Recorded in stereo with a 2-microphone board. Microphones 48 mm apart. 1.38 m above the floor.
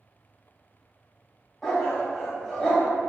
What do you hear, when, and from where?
1.6 s a dog barking: 15° left (ahead or behind), 1.7 m